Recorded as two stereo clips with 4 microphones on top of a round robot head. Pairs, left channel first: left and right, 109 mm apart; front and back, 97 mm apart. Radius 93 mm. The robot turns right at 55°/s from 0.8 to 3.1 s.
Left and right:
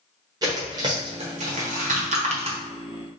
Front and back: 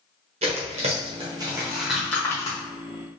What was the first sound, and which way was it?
Tearing paper, 150° right.